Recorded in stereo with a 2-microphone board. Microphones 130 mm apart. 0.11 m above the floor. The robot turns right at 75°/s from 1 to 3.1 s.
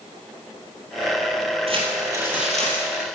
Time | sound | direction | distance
1.7 | crumpling | 65° right | 2.5 m